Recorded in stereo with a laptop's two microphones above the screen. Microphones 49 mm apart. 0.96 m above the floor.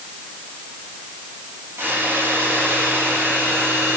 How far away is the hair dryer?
About 3 m.